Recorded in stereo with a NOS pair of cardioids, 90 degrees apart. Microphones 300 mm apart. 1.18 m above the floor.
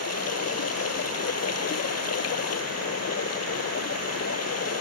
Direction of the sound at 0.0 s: 55° left.